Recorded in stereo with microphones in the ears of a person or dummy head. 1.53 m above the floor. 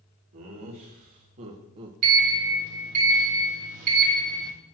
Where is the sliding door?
50° right (ahead or behind), 1.5 m.